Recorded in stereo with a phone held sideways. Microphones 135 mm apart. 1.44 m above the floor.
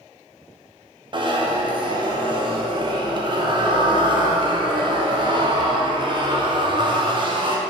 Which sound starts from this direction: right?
A zipper, at 1.1 s.